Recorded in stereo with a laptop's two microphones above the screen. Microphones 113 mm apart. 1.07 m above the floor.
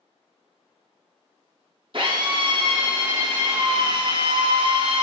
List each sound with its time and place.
1.9 s a drill: 50° right (ahead or behind), 0.8 m